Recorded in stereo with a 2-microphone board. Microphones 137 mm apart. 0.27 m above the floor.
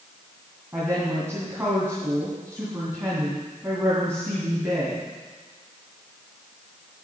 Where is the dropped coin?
No dropped coin in this recording.